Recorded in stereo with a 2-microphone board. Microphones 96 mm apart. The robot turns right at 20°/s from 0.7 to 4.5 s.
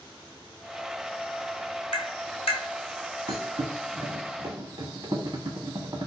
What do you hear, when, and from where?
1.9 s tapping: 75° left (ahead or behind), 0.9 m; by 2.6 s 80° left, 0.9 m
3.3 s a thud: 75° right (ahead or behind), 1.0 m; by 6.1 s 50° right (ahead or behind), 1.0 m